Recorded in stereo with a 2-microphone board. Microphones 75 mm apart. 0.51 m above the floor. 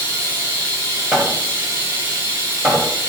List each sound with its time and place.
0.0 s running water: 35° right (ahead or behind), 3 m
1.1 s hammering: 10° right (ahead or behind), 2.5 m